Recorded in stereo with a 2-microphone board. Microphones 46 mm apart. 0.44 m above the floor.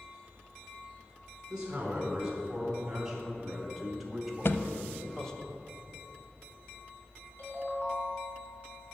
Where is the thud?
55° left (ahead or behind), 0.5 m.